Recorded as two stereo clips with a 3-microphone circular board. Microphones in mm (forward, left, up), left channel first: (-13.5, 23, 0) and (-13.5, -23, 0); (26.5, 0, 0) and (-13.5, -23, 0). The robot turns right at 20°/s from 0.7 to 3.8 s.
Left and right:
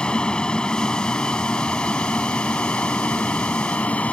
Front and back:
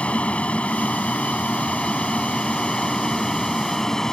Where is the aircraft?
50° left; by 4.1 s 95° left.